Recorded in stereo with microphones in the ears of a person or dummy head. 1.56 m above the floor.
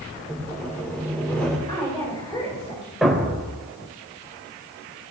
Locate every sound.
0.3 s sawing: 10° left (ahead or behind), 3 m
1.7 s a woman speaking: 25° left (ahead or behind), 10 m
3.0 s a thud: centre (ahead or behind), 3 m